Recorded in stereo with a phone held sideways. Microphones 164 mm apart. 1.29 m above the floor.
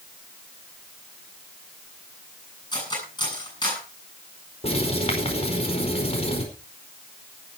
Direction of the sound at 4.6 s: 40° left (ahead or behind).